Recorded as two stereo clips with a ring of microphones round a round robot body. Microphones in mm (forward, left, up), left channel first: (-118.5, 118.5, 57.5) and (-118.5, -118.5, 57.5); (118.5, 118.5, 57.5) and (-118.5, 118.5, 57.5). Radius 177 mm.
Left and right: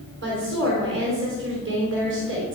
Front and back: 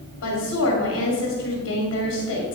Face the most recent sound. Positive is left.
turn(degrees=-45)